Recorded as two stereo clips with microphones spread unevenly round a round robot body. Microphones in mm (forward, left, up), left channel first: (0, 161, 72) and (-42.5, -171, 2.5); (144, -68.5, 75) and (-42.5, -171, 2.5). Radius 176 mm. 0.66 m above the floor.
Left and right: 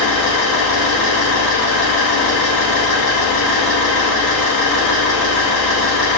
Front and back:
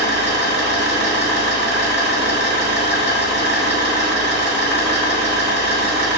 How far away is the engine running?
About 1.5 m.